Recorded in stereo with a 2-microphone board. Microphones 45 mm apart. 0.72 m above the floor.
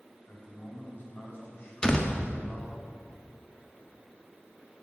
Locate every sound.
0.3 s a man speaking: 50° left (ahead or behind), 4 m
1.8 s a door slam: 20° left (ahead or behind), 1.1 m